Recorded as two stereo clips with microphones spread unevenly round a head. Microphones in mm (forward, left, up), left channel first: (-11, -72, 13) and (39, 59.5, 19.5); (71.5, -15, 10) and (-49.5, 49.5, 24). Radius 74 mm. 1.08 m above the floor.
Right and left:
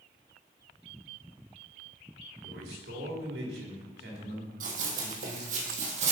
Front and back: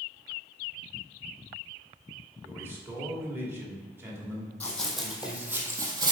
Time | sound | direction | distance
2.4 | a man speaking | 80° left | 2 m
4.6 | running footsteps | 55° left | 1.9 m